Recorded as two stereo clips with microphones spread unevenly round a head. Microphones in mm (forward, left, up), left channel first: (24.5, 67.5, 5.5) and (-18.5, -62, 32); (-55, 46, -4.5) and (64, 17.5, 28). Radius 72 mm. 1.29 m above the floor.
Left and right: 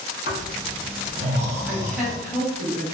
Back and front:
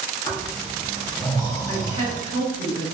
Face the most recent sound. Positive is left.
turn(degrees=165)